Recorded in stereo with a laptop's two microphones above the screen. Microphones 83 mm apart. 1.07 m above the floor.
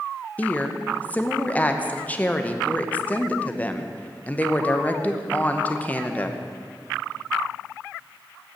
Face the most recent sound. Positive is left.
turn(degrees=15)  # may be behind; listen again after turning